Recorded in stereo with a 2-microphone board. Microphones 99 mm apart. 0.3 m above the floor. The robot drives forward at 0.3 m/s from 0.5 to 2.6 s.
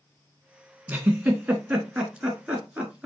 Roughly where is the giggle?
Centre.